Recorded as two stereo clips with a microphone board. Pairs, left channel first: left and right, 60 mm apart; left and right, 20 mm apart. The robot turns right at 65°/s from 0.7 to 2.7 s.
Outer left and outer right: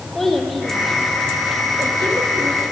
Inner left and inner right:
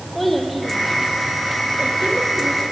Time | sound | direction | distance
0.1 | a child speaking | 5° left (ahead or behind) | 4 m